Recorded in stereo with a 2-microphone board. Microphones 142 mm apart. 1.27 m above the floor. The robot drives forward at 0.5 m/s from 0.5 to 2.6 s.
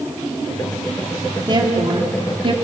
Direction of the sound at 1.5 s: 35° right (ahead or behind).